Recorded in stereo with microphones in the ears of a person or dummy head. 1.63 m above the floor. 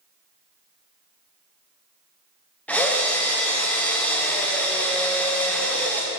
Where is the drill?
5° left (ahead or behind), 0.7 m.